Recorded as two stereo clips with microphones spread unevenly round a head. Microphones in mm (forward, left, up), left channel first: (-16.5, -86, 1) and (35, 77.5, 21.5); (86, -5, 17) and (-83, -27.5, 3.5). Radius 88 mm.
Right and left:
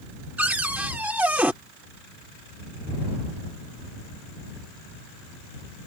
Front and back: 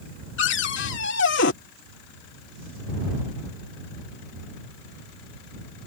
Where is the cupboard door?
10° right.